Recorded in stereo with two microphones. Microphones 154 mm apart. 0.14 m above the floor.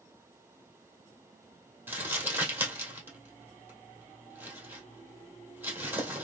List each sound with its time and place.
1.9 s crumpling: 15° right (ahead or behind), 2 m